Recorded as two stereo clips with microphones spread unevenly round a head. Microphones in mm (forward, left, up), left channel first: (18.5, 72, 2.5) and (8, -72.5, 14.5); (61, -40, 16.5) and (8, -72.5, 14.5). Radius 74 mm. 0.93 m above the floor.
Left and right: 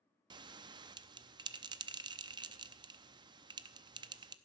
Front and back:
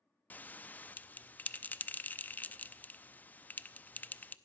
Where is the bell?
35° right, 0.7 m.